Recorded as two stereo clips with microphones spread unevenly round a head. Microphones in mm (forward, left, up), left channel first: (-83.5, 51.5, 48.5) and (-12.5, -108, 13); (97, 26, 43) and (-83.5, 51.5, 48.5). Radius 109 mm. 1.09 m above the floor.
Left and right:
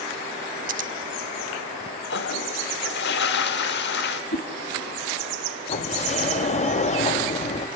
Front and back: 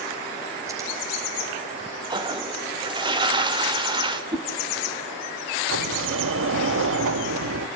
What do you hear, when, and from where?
0.7 s scissors: 115° right, 0.9 m
2.1 s a toilet flushing: 110° left, 1.4 m
4.3 s a whoosh: 105° left, 1.6 m
5.7 s a sliding door: 165° left, 1.2 m